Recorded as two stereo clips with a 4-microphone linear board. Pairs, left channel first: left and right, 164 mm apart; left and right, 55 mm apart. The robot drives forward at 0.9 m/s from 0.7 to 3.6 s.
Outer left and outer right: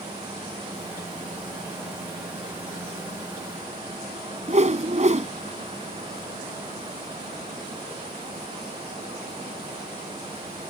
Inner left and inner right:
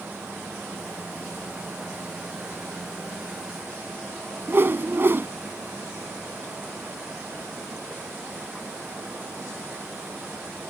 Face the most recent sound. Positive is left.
turn(degrees=-45)  # may be behind; listen again after turning